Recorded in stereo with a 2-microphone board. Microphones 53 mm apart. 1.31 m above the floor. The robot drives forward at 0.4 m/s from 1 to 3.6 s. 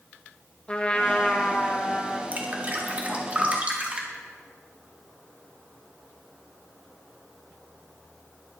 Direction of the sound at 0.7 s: 20° left (ahead or behind).